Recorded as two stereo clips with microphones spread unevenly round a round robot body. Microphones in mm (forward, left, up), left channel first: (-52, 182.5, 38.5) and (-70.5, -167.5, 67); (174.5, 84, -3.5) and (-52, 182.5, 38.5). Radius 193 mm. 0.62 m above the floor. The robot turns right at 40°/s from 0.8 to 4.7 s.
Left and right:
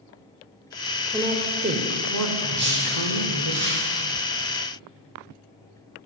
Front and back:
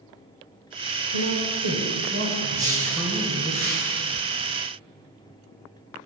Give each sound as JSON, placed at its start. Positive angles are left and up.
{"t": 1.1, "sound": "a woman speaking", "azimuth_deg": 180, "distance_m": 2.0}
{"t": 2.5, "sound": "a whoosh", "azimuth_deg": -160, "distance_m": 5.5}